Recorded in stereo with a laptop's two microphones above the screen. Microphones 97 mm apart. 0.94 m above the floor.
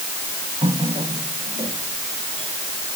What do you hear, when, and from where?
0.6 s a running tap: 65° right (ahead or behind)